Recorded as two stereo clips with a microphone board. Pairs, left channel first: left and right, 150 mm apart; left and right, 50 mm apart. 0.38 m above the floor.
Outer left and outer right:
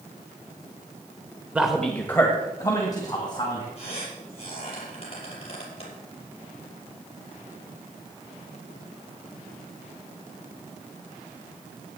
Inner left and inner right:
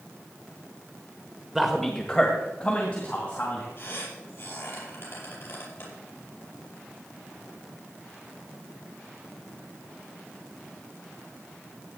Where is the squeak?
40° left (ahead or behind), 5.5 m.